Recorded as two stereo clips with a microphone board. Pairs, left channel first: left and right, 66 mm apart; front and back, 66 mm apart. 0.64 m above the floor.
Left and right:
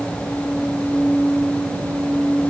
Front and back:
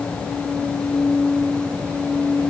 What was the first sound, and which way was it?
Only background noise.